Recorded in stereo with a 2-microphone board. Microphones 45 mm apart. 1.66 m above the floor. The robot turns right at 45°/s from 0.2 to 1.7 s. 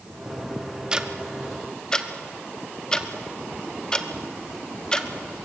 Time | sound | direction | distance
0.9 | ticking | 20° right (ahead or behind) | 1.1 m